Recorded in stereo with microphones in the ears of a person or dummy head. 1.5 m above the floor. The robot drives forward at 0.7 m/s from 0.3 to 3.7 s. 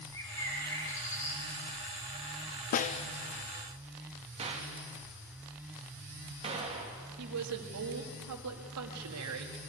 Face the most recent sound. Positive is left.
turn(degrees=-80)